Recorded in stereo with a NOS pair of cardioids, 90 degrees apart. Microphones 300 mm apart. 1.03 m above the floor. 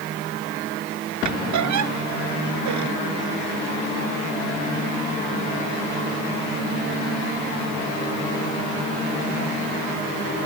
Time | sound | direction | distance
1.2 | a squeak | 70° right | ?